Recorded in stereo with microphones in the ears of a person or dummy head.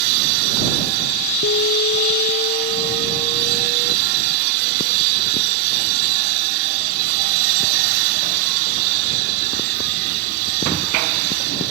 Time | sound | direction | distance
1.4 | an alarm | 60° left (ahead or behind) | ?